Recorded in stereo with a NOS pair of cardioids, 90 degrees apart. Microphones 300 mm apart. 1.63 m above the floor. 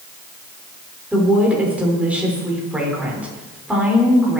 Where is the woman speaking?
5° right, 6.5 m.